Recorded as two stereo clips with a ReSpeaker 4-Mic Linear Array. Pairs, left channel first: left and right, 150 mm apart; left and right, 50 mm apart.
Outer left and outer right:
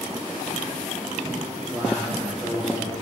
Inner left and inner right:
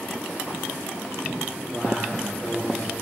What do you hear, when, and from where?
1.7 s a man speaking: 15° right (ahead or behind), 3.5 m